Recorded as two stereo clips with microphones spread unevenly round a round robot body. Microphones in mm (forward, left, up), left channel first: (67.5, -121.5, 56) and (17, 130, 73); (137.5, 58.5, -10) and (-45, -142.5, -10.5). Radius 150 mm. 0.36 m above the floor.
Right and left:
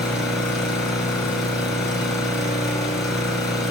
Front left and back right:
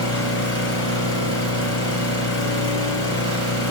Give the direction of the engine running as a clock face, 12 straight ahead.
12 o'clock.